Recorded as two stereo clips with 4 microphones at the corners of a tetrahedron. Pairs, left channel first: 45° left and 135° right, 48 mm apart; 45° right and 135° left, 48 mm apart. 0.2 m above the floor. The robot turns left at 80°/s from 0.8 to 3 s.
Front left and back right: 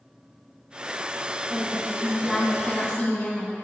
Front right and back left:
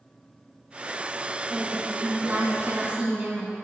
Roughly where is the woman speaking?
Behind right.